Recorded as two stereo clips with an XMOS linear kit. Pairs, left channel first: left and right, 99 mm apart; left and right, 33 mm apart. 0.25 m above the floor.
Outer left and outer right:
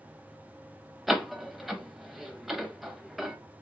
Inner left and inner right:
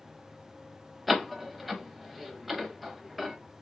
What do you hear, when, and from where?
1.1 s a door slam: centre (ahead or behind), 0.7 m